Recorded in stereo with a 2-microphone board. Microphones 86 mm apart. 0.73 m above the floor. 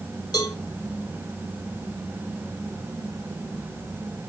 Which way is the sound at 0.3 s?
50° left (ahead or behind).